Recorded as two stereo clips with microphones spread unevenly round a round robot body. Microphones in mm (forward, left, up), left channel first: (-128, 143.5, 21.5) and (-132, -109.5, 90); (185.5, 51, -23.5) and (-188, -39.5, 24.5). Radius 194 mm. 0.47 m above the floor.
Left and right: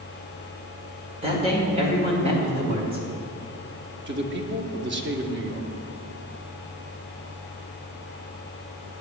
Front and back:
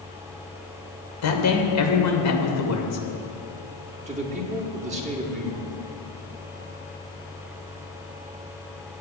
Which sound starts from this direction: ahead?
A man speaking, at 1.2 s.